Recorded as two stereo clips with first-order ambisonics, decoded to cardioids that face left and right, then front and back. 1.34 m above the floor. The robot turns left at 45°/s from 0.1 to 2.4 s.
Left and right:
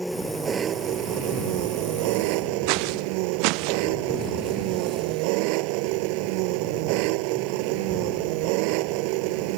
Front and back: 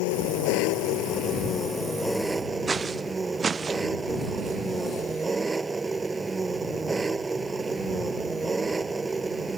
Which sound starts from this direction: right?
Footsteps, at 2.7 s.